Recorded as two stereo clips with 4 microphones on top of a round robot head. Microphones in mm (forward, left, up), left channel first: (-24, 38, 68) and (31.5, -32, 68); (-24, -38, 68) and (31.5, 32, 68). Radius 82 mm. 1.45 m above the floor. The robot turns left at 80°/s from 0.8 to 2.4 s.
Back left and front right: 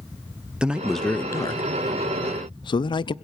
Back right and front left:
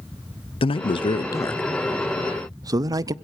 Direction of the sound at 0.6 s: 135° right.